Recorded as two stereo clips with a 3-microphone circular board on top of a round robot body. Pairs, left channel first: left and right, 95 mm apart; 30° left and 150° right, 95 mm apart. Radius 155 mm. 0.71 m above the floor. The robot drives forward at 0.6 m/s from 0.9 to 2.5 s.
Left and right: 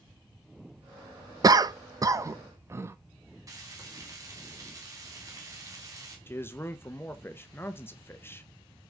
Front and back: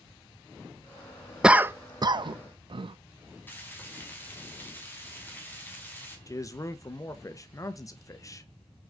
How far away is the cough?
About 0.6 m.